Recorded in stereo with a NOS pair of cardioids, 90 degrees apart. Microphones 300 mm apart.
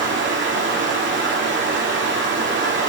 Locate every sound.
0.0 s running water: 40° right, 2.5 m